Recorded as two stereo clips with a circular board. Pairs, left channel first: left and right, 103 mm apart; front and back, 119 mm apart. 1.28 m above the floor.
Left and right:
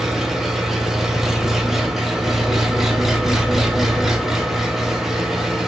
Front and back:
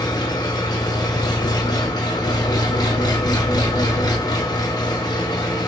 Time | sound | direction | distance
0.0 | an engine running | 5° right | 0.8 m